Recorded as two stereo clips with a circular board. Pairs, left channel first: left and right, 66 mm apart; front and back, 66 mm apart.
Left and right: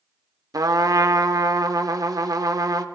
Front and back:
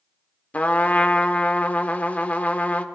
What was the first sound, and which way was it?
A trumpet, 70° right.